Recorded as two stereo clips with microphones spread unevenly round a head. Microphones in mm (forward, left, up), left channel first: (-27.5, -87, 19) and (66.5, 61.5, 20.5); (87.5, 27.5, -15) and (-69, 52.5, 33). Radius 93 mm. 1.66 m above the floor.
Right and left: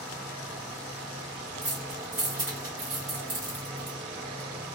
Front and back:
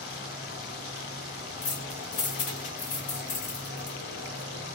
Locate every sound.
0.0 s an insect: 25° right, 1.4 m
1.6 s keys jangling: 5° right, 1.5 m